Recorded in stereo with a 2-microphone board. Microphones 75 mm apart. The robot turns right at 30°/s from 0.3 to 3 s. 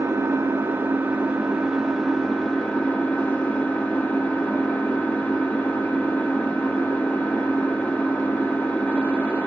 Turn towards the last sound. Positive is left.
turn(degrees=30)